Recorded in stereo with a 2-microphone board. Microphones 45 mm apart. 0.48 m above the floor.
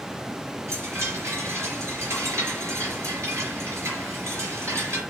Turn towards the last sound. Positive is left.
turn(degrees=-85)